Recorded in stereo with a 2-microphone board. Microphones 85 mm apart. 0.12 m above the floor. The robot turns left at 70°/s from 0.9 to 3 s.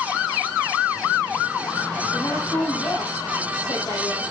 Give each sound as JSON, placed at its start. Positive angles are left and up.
{"t": 2.1, "sound": "a woman speaking", "azimuth_deg": 160, "distance_m": 4.0}